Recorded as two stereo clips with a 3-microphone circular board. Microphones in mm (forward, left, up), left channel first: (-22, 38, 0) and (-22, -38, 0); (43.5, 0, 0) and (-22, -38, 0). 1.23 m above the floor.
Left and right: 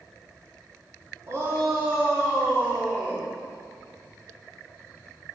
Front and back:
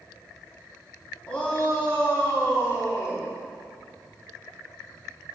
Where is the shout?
45° right, 3 m; by 3.3 s 25° right, 3.5 m.